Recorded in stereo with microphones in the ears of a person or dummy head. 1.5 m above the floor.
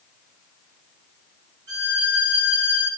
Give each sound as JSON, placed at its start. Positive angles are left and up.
{"t": 1.7, "sound": "a violin", "side_deg": -80, "distance_m": 9.5}